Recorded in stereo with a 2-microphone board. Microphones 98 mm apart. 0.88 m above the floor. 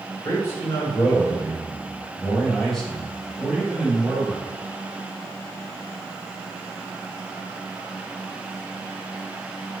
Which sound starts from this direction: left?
A man speaking, at 0.2 s.